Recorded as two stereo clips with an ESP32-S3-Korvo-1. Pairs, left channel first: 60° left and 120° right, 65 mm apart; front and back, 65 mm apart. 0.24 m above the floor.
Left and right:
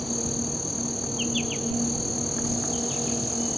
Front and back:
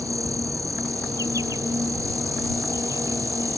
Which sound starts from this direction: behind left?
An insect, at 0.0 s.